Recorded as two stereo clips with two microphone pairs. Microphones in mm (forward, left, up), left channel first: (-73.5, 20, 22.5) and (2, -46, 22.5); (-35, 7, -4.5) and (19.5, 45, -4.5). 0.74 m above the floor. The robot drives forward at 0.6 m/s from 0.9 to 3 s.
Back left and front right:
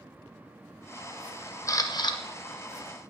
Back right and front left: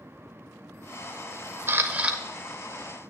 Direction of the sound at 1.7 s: 85° left.